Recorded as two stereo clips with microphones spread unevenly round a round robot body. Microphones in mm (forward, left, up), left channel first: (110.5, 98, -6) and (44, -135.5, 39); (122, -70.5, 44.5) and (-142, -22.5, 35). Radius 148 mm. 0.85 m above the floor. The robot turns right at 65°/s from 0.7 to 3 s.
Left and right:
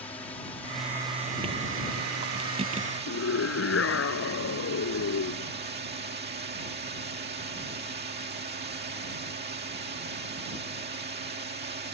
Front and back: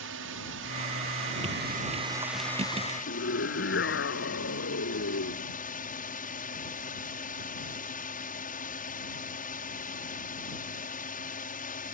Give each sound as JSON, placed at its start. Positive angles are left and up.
{"t": 0.0, "sound": "a drone", "azimuth_deg": 150}
{"t": 3.1, "sound": "a scream", "azimuth_deg": 45}